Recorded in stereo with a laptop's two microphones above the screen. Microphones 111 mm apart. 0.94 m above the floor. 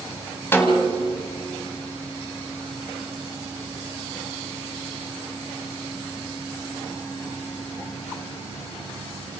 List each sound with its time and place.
0.5 s a snare drum: 20° left (ahead or behind), 2 m